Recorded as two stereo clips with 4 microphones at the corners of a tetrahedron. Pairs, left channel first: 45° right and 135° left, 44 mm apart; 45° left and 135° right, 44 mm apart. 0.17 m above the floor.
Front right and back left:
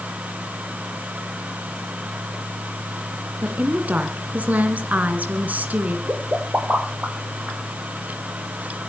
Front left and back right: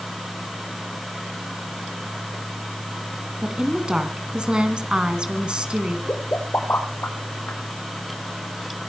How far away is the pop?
About 5.5 m.